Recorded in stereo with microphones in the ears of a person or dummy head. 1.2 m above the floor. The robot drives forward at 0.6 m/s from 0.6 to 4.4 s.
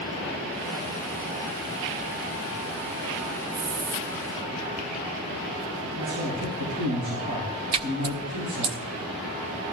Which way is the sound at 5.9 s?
70° right (ahead or behind).